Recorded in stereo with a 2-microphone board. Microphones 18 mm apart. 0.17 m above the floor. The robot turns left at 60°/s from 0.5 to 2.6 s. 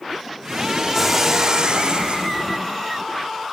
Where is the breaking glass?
5° left, 5 m; by 2.3 s 80° right, 5 m.